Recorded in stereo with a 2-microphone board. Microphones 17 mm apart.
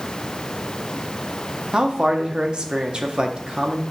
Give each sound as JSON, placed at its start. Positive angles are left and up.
{"t": 1.7, "sound": "a man speaking", "side_deg": -60, "distance_m": 1.4}